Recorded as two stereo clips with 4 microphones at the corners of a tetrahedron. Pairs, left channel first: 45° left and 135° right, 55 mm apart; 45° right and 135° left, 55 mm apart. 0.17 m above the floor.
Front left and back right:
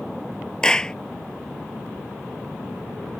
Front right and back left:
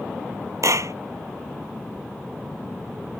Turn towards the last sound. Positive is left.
turn(degrees=120)